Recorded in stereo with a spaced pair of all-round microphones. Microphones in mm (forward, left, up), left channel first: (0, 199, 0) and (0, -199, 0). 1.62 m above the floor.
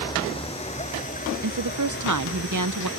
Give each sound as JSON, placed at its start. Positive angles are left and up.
{"t": 0.0, "sound": "a vehicle", "side_deg": 10}
{"t": 1.4, "sound": "a woman speaking", "side_deg": -50}